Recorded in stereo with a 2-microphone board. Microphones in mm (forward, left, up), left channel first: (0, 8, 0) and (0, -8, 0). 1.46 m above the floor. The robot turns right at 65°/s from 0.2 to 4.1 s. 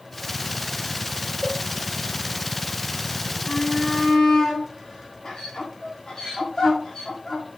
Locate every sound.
1.4 s a cowbell: 20° right (ahead or behind), 1.1 m; by 1.6 s 35° right (ahead or behind), 1.1 m
3.5 s a shout: 80° left, 3.5 m; by 7.5 s 40° left (ahead or behind), 3.5 m